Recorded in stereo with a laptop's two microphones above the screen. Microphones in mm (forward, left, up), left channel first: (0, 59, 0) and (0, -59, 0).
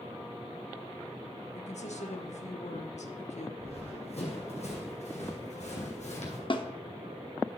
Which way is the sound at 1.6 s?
75° left (ahead or behind).